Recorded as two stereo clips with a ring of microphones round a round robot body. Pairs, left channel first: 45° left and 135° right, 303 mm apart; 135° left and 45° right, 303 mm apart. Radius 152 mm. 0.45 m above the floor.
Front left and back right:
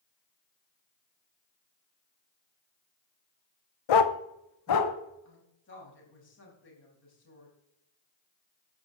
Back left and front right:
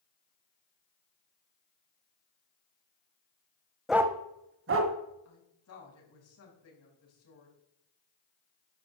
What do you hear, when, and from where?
3.9 s a dog barking: 45° left, 0.8 m; by 4.9 s straight ahead, 1.5 m
5.2 s a woman speaking: 95° left, 4.5 m